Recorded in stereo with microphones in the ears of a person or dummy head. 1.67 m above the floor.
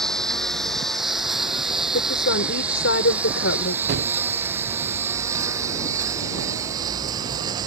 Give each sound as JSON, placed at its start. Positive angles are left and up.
{"t": 0.0, "sound": "a lawn mower", "side_deg": 5}
{"t": 1.9, "sound": "a woman speaking", "side_deg": 60}
{"t": 3.9, "sound": "a gunshot", "side_deg": -60}